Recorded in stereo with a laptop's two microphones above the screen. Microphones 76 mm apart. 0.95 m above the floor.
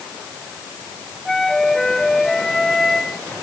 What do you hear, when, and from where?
1.2 s a flute: 5° left (ahead or behind)